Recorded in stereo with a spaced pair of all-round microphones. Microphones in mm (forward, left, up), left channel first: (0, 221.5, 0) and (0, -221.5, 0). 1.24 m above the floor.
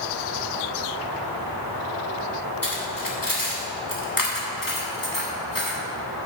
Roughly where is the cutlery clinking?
Left.